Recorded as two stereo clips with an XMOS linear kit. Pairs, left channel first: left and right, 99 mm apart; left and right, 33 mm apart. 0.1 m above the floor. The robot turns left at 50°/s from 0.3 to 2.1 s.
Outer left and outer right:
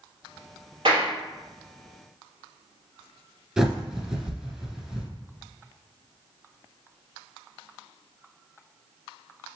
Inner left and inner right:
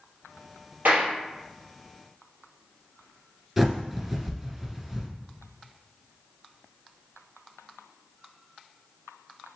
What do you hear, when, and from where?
0.8 s a clap: 60° right (ahead or behind), 2 m; by 1.1 s 55° right (ahead or behind), 2 m
3.6 s a bird: 5° right (ahead or behind), 1.2 m